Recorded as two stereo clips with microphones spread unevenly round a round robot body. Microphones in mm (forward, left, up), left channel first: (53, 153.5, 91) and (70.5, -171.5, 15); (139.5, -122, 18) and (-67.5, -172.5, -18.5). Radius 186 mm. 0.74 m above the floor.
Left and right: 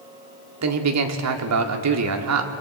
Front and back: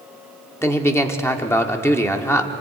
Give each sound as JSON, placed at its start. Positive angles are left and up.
{"t": 0.6, "sound": "a man speaking", "azimuth_deg": -70, "distance_m": 1.9}